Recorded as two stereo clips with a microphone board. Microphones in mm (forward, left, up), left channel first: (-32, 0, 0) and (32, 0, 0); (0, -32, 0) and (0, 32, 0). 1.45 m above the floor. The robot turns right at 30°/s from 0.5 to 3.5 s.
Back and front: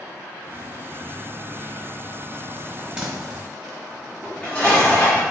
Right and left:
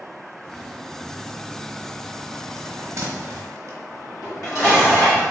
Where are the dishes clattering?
115° right, 1.8 m.